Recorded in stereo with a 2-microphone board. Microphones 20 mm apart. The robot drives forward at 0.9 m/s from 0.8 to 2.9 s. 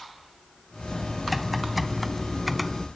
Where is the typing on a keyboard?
5° right (ahead or behind).